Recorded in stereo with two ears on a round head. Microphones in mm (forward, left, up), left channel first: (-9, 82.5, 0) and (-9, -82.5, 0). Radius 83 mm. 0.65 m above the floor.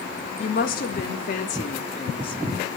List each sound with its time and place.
0.4 s a woman speaking: 55° left (ahead or behind), 1.5 m; by 2.4 s 25° left (ahead or behind), 0.9 m